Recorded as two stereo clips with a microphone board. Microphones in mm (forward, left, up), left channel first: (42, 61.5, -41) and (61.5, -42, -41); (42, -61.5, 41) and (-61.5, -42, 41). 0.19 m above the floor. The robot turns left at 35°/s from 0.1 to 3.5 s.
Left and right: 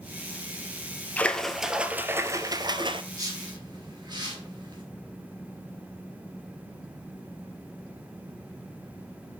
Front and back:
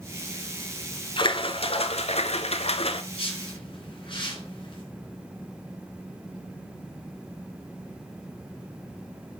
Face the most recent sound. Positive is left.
turn(degrees=-40)